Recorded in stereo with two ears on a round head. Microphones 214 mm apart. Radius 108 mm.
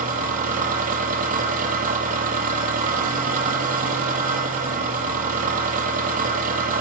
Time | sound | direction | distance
0.0 | an engine running | 35° right (ahead or behind) | 7 m